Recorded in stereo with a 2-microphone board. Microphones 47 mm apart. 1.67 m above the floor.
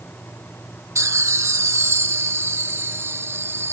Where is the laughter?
70° right (ahead or behind); by 3.7 s 55° right (ahead or behind).